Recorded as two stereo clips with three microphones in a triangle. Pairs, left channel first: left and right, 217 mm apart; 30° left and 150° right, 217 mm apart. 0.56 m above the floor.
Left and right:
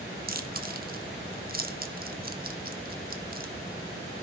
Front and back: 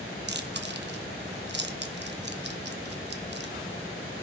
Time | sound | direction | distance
0.3 | chewing | 130° right | 0.7 m